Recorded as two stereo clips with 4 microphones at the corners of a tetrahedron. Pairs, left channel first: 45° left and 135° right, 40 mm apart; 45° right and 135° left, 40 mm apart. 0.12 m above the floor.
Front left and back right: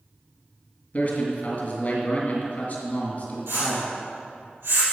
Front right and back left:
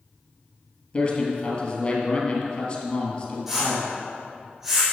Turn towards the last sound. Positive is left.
turn(degrees=-140)